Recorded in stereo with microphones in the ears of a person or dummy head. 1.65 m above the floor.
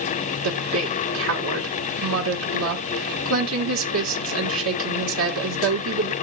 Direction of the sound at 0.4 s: 75° right (ahead or behind).